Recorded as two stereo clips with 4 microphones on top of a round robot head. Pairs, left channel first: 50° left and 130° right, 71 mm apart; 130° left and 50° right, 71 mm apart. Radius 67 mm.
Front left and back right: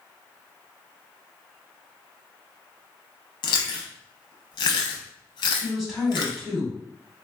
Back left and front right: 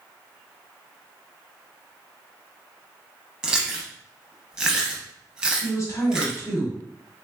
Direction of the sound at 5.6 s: 140° left.